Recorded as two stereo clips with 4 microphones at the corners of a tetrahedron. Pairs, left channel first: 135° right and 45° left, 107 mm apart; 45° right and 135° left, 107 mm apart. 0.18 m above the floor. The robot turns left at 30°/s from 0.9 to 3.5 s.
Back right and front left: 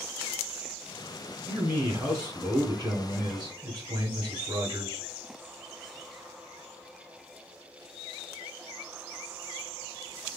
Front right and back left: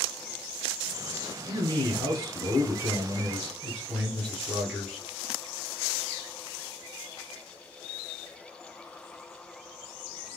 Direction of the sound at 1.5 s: 110° left.